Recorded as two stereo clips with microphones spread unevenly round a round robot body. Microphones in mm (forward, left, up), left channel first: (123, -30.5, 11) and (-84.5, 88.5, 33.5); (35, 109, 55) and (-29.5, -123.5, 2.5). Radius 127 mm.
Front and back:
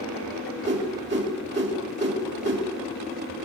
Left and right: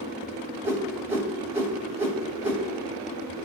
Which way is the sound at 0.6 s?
175° right.